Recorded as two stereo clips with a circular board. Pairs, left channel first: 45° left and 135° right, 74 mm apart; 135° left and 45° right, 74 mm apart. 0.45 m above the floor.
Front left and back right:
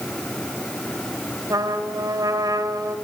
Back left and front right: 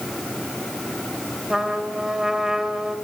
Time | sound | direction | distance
1.5 | a trumpet | 125° right | 2.5 m